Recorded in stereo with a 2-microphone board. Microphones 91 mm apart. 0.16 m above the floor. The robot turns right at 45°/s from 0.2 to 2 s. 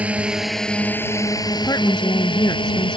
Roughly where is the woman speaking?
Left.